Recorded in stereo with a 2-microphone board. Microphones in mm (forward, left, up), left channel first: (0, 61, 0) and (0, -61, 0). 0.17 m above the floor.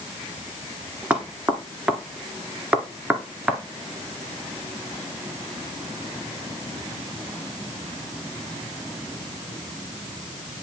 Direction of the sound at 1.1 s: 10° right (ahead or behind).